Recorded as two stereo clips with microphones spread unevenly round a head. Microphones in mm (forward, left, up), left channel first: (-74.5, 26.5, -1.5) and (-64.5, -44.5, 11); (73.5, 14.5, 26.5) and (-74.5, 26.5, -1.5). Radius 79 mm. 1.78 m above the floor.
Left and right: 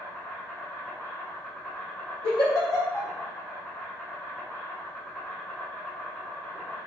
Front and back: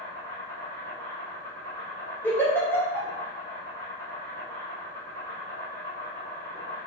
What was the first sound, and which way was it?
An insect, 35° left.